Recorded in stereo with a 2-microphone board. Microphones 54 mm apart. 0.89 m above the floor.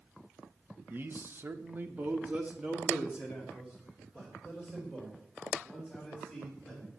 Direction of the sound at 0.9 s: 40° right (ahead or behind).